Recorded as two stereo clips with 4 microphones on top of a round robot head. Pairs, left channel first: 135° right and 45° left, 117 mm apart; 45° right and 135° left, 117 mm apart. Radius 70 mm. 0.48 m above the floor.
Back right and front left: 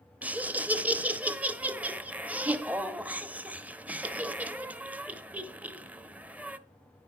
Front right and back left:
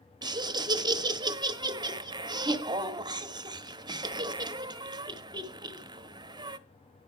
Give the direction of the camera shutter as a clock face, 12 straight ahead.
I don't hear a camera shutter.